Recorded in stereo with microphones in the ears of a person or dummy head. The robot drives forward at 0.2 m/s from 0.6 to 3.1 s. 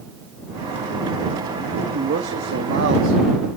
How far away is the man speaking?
About 1.2 m.